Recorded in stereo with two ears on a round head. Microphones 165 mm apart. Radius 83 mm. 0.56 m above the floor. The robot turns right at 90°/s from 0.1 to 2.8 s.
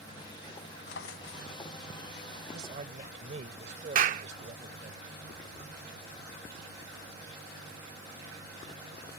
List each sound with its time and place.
0.9 s a drawer: 70° left; by 1.5 s 125° left
2.5 s a man speaking: 60° right (ahead or behind); by 5.0 s 40° right (ahead or behind)
4.0 s a clap: 45° right (ahead or behind)